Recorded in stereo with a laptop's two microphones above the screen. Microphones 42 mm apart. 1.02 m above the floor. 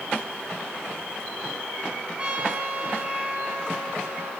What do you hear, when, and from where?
2.2 s a trumpet: 25° right (ahead or behind), 9.5 m